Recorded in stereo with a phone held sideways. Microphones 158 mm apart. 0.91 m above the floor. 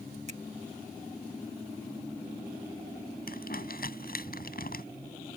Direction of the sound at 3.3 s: 75° left (ahead or behind).